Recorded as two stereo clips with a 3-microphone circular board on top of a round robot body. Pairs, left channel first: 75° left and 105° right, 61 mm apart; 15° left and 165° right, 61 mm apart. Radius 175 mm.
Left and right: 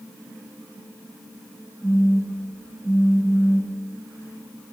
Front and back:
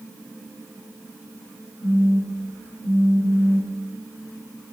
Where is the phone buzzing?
5° right, 2.0 m.